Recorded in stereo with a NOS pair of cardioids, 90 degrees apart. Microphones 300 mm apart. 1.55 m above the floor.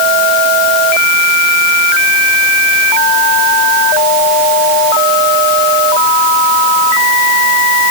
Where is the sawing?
No sawing in this recording.